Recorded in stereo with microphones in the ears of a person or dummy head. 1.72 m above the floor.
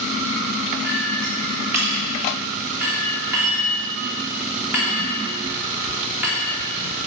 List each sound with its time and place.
0.8 s a clink: 10° right (ahead or behind), 2.0 m